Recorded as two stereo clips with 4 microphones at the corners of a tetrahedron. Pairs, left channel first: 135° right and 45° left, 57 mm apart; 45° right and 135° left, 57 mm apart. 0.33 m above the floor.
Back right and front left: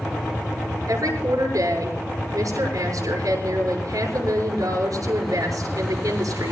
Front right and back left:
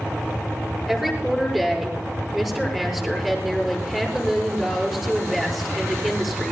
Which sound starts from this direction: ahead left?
A woman speaking, at 0.9 s.